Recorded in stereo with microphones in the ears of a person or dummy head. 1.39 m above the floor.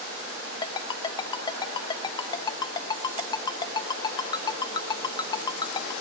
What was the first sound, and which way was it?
A ringtone, 25° left (ahead or behind).